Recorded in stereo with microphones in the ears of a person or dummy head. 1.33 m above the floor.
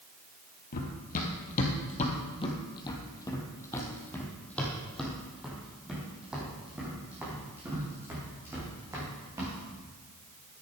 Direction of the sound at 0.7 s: 50° left (ahead or behind).